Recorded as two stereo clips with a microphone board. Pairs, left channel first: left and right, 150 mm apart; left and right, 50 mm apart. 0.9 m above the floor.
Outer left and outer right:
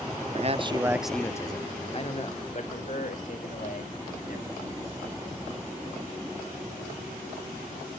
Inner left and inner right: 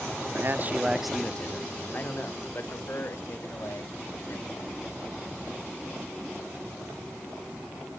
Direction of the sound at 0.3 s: 50° right (ahead or behind).